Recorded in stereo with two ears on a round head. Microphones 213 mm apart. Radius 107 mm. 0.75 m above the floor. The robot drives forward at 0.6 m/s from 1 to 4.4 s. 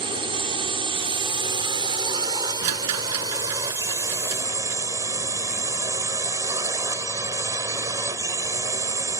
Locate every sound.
0.0 s a drone: 25° right (ahead or behind); by 9.2 s 15° right (ahead or behind)
2.6 s a rattle: 80° right; by 4.8 s 70° right (ahead or behind)